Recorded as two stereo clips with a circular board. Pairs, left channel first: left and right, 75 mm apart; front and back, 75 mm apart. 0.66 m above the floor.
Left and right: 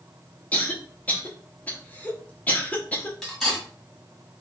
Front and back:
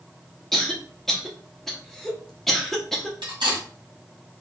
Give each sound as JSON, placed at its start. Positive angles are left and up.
{"t": 0.5, "sound": "a cough", "azimuth_deg": 80, "distance_m": 0.7}
{"t": 3.2, "sound": "cutlery clinking", "azimuth_deg": 180, "distance_m": 1.7}